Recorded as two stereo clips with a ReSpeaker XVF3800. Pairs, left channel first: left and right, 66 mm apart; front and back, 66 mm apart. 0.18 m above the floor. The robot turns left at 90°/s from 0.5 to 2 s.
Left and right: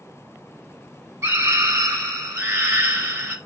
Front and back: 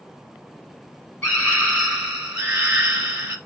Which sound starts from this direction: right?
A scream, at 1.2 s.